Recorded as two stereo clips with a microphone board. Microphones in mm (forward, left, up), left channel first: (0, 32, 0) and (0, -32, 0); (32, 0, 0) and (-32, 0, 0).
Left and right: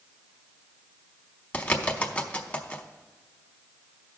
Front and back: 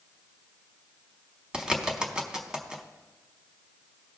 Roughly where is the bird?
Behind left.